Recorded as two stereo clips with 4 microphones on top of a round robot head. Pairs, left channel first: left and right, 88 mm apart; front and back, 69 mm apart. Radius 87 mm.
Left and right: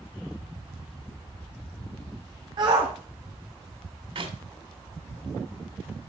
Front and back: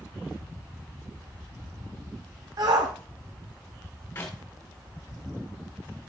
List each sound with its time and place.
2.6 s a shout: 140° right, 1.5 m
4.2 s a clap: 65° right, 3 m